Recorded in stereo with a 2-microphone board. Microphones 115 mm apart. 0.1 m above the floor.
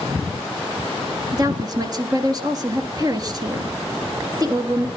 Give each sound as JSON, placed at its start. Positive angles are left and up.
{"t": 1.3, "sound": "a woman speaking", "side_deg": -35, "distance_m": 2.0}